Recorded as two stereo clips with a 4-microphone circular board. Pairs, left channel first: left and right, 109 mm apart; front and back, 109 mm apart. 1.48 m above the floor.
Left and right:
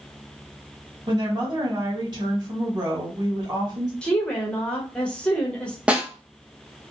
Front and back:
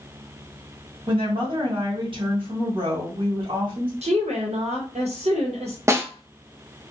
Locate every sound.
1.1 s a woman speaking: 140° right, 1.4 m
4.0 s a woman speaking: 170° left, 0.8 m
5.9 s a snare drum: 155° right, 0.5 m